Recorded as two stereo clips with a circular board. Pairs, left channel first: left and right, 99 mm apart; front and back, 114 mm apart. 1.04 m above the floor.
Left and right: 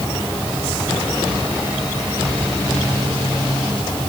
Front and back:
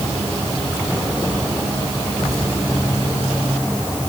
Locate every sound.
Only background noise.